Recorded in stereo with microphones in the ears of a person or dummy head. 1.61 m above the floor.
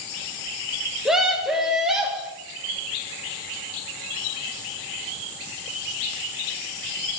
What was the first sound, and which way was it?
A scream, centre (ahead or behind).